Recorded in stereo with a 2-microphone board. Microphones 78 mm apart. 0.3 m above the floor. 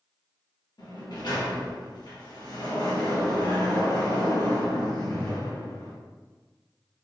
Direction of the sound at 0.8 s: 70° left (ahead or behind).